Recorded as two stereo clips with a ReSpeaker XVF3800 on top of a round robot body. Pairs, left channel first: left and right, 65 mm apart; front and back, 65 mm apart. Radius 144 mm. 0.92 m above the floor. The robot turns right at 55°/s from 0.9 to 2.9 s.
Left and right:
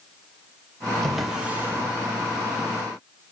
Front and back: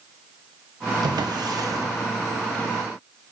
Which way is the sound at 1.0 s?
175° left.